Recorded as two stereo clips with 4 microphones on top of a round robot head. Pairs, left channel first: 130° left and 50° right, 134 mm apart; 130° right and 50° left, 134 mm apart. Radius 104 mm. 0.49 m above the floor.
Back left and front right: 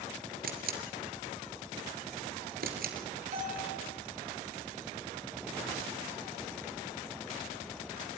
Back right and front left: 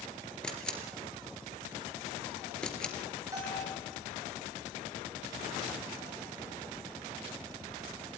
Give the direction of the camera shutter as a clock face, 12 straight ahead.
2 o'clock.